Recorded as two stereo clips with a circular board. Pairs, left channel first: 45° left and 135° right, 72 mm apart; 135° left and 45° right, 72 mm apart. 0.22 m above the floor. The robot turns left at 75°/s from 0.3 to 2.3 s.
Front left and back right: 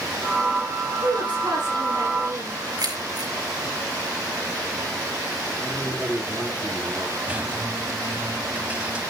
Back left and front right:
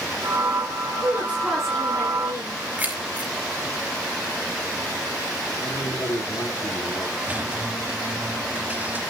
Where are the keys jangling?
115° right, 2.5 m.